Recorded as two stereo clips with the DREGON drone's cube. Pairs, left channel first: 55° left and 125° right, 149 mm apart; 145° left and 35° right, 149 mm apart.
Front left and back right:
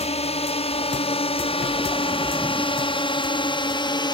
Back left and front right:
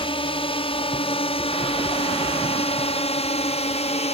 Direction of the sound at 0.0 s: 95° left.